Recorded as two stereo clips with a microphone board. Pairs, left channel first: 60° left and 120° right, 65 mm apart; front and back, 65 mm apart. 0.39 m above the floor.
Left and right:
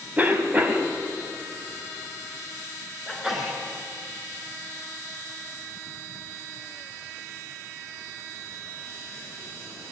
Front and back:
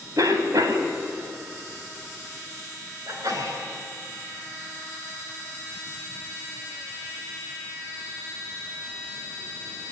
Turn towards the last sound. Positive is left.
turn(degrees=150)